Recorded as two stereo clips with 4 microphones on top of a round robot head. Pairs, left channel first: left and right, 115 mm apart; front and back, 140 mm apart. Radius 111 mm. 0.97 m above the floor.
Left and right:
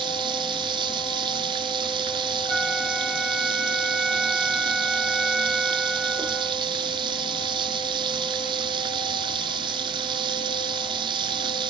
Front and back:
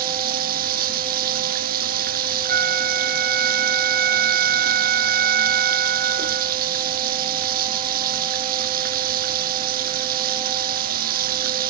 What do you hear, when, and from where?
0.0 s running water: 150° right
2.5 s a flute: straight behind